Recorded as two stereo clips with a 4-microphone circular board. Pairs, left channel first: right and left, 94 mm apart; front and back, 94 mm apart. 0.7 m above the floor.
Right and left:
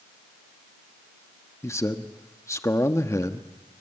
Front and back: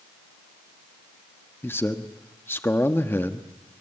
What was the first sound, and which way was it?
A man speaking, 55° right.